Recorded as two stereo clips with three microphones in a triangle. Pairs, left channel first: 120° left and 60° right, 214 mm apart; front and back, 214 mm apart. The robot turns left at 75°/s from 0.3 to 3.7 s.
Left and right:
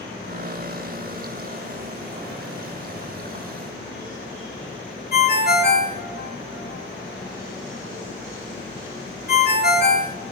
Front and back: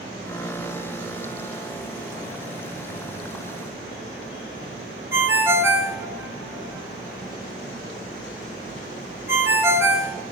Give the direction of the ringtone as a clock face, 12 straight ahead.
8 o'clock.